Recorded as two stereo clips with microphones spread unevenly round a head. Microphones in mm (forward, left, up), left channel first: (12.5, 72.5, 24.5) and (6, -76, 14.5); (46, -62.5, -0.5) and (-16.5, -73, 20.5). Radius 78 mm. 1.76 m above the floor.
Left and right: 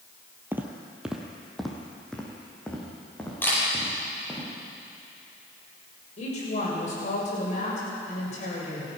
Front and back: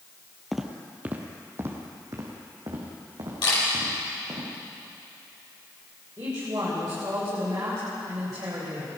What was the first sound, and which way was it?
Footsteps, 160° right.